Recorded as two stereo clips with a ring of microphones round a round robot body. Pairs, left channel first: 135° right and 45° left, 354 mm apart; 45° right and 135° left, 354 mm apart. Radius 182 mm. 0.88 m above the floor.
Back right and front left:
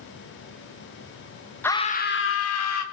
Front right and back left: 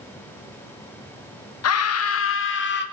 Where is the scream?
55° right, 1.1 m; by 2.8 s 100° right, 2 m.